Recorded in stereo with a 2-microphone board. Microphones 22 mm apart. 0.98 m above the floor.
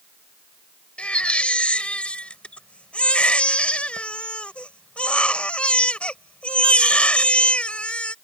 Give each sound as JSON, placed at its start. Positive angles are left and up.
{"t": 1.0, "sound": "a baby crying", "side_deg": 90}